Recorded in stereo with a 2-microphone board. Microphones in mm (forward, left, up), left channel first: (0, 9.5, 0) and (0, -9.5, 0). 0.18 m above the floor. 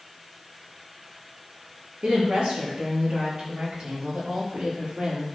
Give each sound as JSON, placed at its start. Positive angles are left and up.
{"t": 2.0, "sound": "a woman speaking", "side_deg": -65, "distance_m": 4.0}